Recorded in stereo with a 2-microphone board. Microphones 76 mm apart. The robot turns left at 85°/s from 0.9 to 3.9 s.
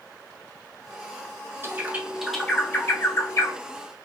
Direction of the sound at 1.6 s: 30° right (ahead or behind).